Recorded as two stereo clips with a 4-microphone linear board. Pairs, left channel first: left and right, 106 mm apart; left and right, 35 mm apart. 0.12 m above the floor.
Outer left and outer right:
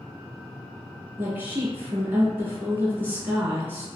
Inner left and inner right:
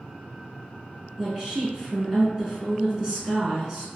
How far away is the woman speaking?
About 1.1 m.